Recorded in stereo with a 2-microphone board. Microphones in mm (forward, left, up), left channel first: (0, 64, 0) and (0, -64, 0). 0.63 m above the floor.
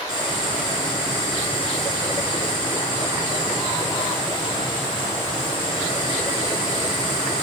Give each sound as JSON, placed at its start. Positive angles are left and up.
{"t": 0.1, "sound": "boiling", "side_deg": 35, "distance_m": 6.5}